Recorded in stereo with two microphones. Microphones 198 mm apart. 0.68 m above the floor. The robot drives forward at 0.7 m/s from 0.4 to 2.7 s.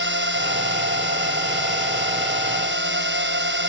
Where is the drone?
70° right (ahead or behind); by 3.7 s 65° right (ahead or behind).